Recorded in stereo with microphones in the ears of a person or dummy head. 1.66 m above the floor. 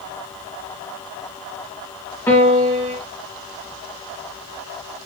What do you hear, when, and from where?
2.3 s a piano: 10° left (ahead or behind), 1.4 m